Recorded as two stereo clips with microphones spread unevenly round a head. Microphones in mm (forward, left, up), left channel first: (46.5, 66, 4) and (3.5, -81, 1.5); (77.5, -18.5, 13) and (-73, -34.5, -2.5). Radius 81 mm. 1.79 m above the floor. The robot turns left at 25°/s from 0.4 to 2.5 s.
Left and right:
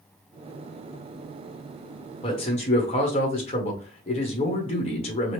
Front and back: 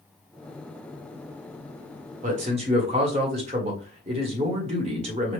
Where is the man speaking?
135° left, 1.2 m; by 5.4 s 130° left, 1.2 m.